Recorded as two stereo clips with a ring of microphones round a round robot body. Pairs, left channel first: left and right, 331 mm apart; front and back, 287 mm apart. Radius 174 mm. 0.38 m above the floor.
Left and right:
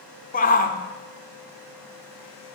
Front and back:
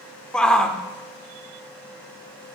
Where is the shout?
85° left, 0.8 m.